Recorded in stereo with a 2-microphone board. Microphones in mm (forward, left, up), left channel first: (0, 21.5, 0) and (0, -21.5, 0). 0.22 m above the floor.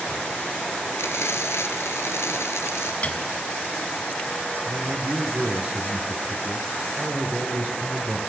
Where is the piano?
35° left (ahead or behind), 1.6 m.